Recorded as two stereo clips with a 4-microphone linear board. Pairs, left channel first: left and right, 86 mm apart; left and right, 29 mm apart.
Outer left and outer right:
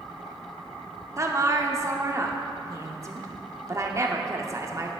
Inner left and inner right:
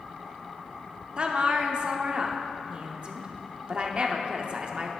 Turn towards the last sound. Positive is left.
turn(degrees=-35)  # may be behind; listen again after turning